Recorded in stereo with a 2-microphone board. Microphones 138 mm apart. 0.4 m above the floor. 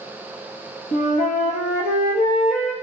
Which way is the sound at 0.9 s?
70° left (ahead or behind).